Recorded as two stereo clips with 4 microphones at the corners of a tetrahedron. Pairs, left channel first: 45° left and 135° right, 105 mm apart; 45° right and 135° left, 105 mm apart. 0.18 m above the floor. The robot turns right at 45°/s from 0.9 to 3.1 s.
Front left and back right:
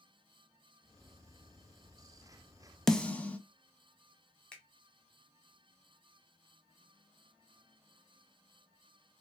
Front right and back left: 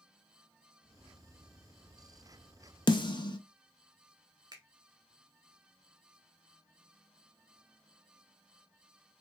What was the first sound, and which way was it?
A snare drum, 40° right.